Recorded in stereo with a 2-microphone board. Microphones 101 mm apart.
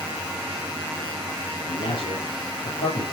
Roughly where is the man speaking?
Left.